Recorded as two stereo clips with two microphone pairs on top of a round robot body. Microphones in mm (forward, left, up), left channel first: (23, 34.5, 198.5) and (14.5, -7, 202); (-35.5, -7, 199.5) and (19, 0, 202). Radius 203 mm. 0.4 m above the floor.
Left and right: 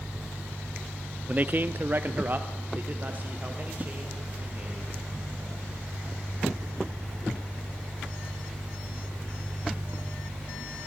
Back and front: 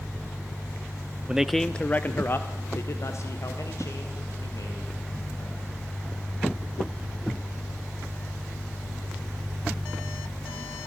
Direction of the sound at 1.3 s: 60° right.